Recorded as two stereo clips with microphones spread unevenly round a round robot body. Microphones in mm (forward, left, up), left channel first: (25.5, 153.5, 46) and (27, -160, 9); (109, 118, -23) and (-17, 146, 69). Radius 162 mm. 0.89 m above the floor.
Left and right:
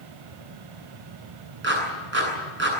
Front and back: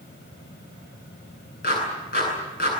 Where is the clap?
35° right, 8.5 m.